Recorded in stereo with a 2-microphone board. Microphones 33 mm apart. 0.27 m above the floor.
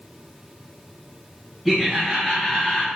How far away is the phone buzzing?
No phone buzzing in this recording.